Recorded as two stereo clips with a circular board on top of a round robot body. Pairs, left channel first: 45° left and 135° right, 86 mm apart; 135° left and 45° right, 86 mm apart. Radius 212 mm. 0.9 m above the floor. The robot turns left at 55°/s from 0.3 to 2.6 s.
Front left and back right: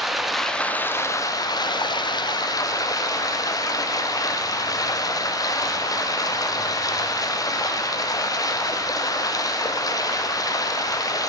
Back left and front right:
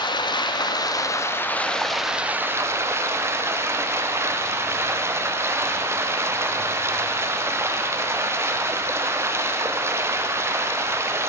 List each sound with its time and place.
0.0 s running water: 135° left, 0.7 m; by 11.3 s 10° left, 0.7 m